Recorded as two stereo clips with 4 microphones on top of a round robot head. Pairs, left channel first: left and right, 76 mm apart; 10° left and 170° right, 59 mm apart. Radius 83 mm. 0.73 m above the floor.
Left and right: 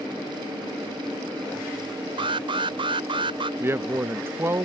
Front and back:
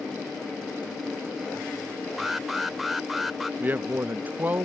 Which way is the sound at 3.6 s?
130° right.